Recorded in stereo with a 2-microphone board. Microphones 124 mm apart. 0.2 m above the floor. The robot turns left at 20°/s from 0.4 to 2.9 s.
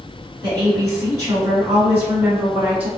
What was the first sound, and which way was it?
A woman speaking, 105° right.